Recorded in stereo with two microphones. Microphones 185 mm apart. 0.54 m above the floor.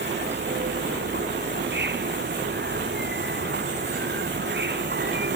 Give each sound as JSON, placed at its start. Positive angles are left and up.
{"t": 0.0, "sound": "an insect", "side_deg": -70}